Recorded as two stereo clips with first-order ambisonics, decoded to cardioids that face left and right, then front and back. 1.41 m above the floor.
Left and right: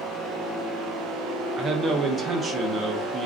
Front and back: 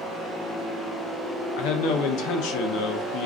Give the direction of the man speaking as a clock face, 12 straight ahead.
1 o'clock.